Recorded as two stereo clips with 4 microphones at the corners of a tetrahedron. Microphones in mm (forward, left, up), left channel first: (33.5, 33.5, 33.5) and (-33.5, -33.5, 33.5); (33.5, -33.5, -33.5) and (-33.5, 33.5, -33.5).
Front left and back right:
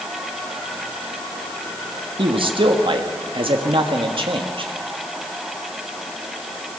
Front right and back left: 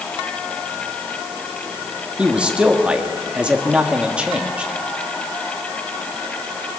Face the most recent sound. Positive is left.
turn(degrees=-150)